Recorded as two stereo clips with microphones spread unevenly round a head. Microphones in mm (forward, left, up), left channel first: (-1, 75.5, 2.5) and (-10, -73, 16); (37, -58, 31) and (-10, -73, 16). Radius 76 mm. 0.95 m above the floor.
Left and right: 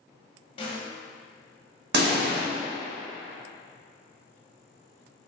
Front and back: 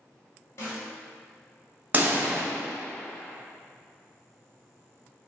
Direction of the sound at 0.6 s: 50° left.